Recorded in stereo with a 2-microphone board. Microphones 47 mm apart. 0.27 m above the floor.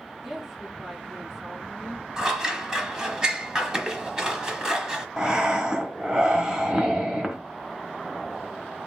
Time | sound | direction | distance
0.2 | a woman speaking | 10° right (ahead or behind) | 3.5 m
2.2 | scissors | 15° right (ahead or behind) | 0.8 m
5.2 | breathing | 20° right (ahead or behind) | 1.0 m